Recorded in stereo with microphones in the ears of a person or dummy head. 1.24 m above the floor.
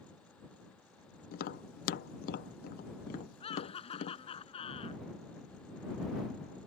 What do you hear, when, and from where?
1.3 s tapping: 45° left (ahead or behind)
3.4 s laughter: 35° left (ahead or behind)